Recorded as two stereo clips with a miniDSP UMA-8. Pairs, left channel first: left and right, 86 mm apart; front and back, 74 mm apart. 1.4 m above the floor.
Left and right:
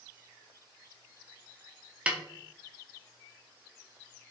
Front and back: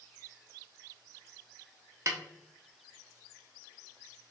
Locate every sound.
2.1 s a snare drum: 160° right, 0.6 m